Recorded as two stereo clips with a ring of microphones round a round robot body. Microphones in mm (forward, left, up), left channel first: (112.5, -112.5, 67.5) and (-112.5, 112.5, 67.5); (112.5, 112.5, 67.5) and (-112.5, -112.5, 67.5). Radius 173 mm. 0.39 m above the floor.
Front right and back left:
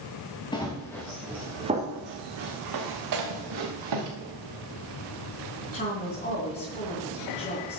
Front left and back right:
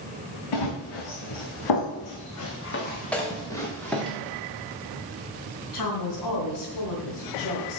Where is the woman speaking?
20° left, 3 m.